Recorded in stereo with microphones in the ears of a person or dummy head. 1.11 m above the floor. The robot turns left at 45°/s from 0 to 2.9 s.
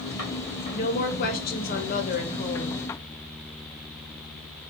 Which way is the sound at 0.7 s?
125° left.